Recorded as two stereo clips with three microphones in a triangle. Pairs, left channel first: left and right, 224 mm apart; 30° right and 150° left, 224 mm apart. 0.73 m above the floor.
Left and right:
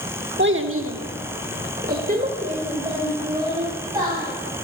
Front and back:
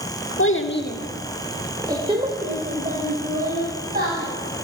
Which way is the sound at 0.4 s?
50° right.